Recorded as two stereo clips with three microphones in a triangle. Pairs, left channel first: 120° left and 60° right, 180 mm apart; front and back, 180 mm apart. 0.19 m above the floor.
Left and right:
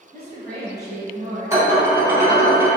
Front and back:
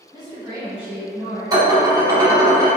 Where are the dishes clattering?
125° right, 1.0 m.